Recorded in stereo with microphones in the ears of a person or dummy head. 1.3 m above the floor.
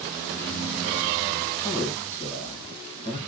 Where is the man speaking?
10° right (ahead or behind), 1.2 m.